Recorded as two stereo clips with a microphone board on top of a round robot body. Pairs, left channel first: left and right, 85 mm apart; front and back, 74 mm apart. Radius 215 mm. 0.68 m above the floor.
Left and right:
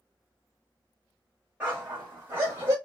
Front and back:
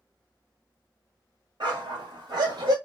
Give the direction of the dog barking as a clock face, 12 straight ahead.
5 o'clock.